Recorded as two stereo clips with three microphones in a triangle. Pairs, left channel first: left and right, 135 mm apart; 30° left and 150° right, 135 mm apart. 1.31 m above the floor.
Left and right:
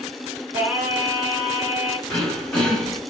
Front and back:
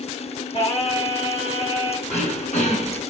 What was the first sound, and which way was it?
Singing, 15° right.